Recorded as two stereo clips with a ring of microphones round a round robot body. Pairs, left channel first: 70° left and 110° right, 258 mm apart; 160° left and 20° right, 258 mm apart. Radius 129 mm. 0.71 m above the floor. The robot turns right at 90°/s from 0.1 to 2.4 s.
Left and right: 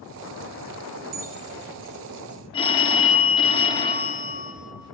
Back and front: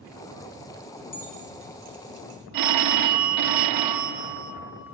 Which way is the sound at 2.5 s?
5° right.